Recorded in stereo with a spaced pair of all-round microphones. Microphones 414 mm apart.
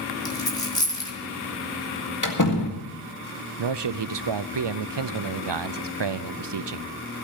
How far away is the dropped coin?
About 3 m.